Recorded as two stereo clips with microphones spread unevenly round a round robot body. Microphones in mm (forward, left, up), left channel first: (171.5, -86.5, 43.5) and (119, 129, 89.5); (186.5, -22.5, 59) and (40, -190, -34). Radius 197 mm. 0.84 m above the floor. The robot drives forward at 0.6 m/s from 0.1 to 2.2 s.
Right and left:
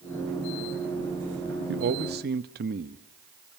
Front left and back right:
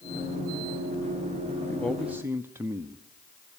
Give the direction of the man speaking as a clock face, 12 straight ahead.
7 o'clock.